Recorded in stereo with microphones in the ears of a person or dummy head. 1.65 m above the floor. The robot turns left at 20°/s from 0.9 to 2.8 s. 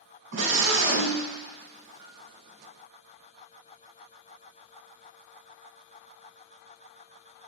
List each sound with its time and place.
0.3 s a scream: 75° right (ahead or behind), 3 m; by 1.2 s 80° right, 3 m
2.0 s a piano: 15° right (ahead or behind), 0.9 m; by 2.2 s 10° right (ahead or behind), 0.9 m